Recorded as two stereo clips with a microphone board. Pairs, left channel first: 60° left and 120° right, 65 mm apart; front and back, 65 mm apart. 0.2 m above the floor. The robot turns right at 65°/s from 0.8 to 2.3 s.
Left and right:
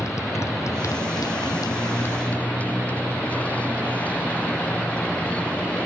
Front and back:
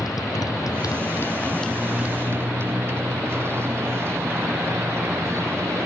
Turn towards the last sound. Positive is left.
turn(degrees=130)